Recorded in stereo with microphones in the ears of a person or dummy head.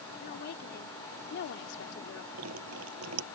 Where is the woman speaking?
55° left (ahead or behind); by 2.2 s 75° left (ahead or behind).